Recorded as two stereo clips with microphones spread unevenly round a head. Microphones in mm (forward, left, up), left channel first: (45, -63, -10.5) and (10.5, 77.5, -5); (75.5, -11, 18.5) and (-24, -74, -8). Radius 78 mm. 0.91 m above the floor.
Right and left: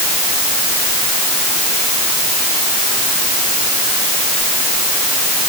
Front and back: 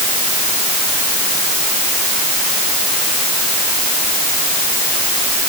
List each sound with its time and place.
Only background noise.